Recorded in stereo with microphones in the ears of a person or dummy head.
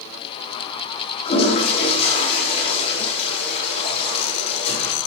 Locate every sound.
1.2 s a toilet flushing: 35° left (ahead or behind), 5 m